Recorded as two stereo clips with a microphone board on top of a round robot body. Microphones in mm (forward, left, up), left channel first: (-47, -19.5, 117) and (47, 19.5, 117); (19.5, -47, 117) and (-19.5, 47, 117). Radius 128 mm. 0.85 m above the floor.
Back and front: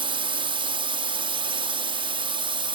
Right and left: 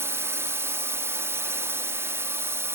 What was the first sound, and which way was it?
A drone, 50° left.